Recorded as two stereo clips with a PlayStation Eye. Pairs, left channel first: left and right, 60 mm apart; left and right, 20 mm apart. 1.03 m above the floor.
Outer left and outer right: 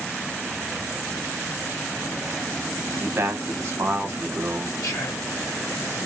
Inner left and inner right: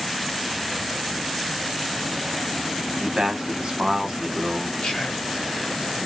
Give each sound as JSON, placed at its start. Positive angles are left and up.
{"t": 2.9, "sound": "a man speaking", "side_deg": -45, "distance_m": 0.9}
{"t": 4.8, "sound": "whispering", "side_deg": 55, "distance_m": 0.8}